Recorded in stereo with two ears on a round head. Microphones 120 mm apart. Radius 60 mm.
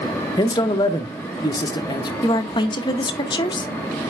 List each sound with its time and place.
0.4 s a man speaking: 30° left (ahead or behind), 0.7 m
2.2 s a woman speaking: 35° left (ahead or behind), 0.7 m